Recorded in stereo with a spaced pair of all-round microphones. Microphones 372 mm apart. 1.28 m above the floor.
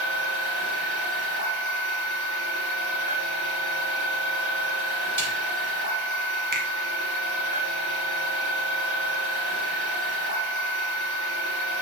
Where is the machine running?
45° right (ahead or behind), 4 m.